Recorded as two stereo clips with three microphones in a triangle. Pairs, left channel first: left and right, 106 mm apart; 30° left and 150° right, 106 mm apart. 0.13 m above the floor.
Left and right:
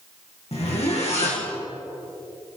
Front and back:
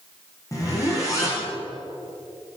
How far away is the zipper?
About 4.5 m.